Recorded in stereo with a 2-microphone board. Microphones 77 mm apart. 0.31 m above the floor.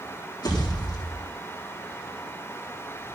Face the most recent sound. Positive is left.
turn(degrees=65)  # may be behind; listen again after turning